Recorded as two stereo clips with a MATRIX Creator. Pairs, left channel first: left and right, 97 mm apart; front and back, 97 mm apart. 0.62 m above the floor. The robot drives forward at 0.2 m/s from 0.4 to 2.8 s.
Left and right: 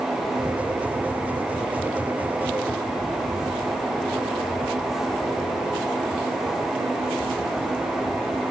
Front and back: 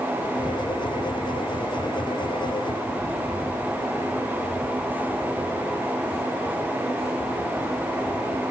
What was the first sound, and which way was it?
Only background noise.